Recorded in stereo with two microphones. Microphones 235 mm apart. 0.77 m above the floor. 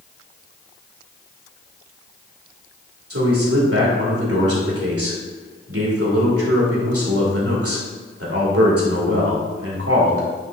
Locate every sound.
3.1 s a man speaking: 75° right (ahead or behind), 2 m